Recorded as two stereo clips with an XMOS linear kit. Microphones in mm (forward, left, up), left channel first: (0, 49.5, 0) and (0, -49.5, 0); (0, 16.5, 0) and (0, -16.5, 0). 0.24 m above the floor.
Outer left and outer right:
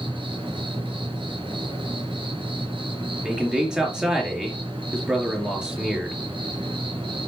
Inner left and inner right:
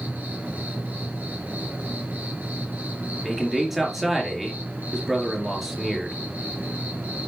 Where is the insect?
60° right (ahead or behind), 4 m.